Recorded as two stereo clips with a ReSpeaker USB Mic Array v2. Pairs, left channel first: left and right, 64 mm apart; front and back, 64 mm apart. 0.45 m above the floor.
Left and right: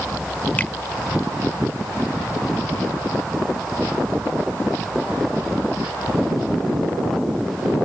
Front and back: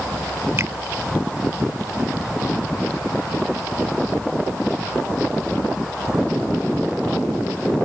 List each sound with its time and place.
0.6 s a finger snap: 150° left